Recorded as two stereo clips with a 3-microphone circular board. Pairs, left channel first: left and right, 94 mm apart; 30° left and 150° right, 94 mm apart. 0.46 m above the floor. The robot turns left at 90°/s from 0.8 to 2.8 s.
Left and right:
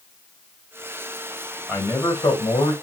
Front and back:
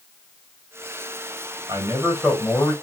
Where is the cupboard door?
I don't hear a cupboard door.